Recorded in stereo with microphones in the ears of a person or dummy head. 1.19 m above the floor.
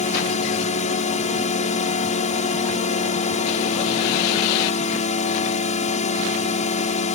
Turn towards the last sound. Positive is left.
turn(degrees=35)  # may be behind; listen again after turning